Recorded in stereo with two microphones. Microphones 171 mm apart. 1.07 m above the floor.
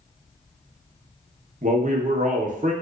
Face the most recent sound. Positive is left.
turn(degrees=-50)  # may be behind; listen again after turning